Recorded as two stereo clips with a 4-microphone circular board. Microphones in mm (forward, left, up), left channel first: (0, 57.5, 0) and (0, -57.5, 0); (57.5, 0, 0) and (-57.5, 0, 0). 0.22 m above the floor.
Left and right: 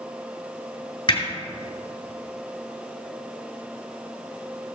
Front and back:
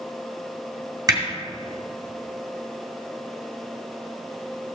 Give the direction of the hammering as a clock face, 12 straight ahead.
8 o'clock.